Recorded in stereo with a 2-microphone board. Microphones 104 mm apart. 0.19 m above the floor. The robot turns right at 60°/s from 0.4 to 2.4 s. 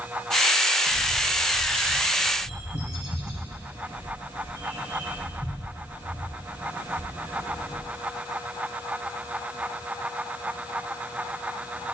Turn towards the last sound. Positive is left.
turn(degrees=65)  # may be behind; listen again after turning